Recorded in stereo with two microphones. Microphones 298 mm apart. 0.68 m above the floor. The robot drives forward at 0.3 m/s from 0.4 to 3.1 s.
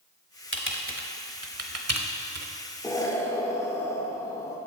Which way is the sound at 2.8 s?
10° left (ahead or behind).